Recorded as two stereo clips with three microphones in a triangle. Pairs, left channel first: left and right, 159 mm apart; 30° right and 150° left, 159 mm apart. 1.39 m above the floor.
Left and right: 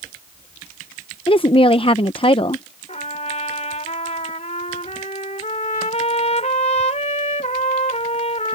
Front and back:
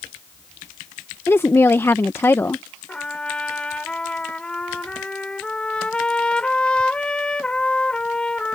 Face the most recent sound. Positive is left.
turn(degrees=55)